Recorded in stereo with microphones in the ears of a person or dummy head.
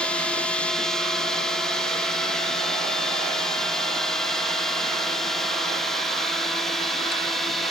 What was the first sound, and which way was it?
A drone, 5° left (ahead or behind).